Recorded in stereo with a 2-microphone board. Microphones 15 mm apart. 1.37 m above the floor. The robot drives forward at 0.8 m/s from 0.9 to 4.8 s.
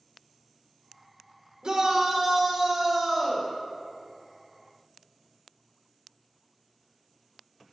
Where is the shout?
50° right (ahead or behind), 1.5 m; by 3.5 s 25° right (ahead or behind), 2.5 m.